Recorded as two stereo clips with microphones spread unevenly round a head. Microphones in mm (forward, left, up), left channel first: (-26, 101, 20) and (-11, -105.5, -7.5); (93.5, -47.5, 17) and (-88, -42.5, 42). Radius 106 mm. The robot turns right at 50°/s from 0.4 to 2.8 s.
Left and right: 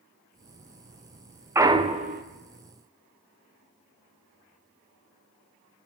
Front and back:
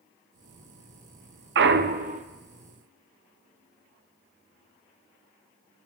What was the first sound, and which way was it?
A clunk, 165° right.